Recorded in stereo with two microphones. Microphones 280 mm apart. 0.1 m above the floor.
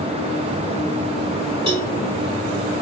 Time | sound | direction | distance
1.7 | a cowbell | 15° right (ahead or behind) | 3.5 m